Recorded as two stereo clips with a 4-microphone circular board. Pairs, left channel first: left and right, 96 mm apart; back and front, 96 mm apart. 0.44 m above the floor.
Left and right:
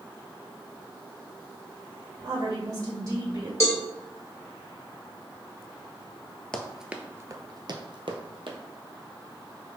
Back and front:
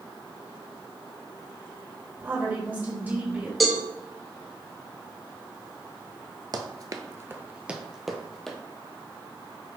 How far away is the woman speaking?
About 1.9 m.